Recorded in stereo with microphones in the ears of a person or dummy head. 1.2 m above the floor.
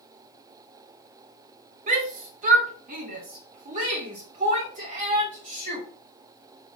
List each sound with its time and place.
1.9 s a shout: 45° right (ahead or behind), 2 m